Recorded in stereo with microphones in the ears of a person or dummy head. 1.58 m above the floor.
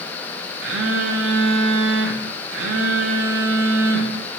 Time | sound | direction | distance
0.6 | a phone buzzing | 65° right (ahead or behind) | 0.5 m